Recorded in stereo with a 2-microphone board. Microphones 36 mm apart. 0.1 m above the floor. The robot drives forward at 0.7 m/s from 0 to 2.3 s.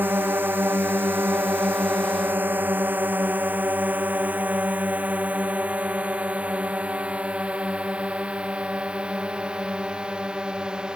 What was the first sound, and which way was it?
A drone, 65° right (ahead or behind).